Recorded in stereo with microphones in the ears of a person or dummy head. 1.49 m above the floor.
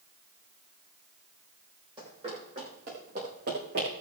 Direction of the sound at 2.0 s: 30° right (ahead or behind).